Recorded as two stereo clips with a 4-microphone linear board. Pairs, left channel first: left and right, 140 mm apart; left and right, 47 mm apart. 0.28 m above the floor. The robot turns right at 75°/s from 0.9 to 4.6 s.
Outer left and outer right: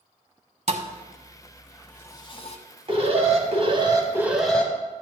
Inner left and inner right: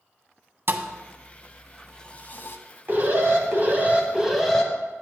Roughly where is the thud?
Right.